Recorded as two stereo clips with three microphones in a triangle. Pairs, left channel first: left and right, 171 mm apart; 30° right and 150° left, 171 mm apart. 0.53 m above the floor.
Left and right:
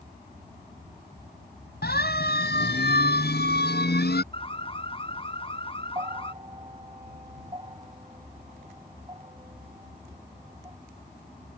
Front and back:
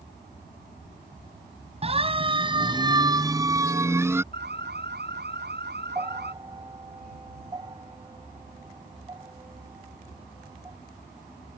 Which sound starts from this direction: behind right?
A bell, at 6.0 s.